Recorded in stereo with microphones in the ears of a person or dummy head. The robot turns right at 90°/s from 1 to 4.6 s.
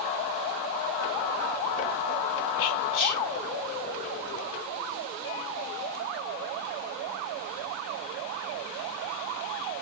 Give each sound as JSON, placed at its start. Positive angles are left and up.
{"t": 2.6, "sound": "whispering", "azimuth_deg": 75, "distance_m": 1.9}